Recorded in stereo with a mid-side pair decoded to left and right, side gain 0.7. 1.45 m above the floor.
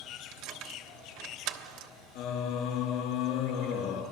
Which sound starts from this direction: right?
Keys jangling, at 0.3 s.